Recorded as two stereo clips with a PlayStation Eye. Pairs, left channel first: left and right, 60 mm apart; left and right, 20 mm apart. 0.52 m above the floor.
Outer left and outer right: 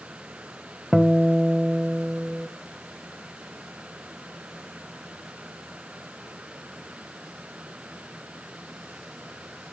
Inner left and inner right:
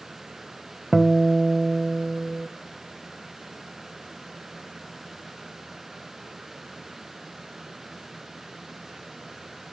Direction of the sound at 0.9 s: Centre (ahead or behind).